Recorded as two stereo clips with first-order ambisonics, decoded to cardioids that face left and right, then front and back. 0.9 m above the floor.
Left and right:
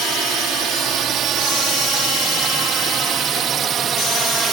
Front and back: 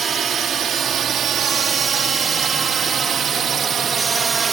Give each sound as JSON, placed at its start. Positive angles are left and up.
{"t": 0.0, "sound": "a drone", "azimuth_deg": -130}